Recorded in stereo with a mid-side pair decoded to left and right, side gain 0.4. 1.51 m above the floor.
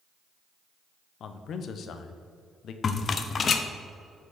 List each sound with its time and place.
1.2 s a man speaking: 70° left, 0.7 m
2.8 s a rattle: 50° left, 0.6 m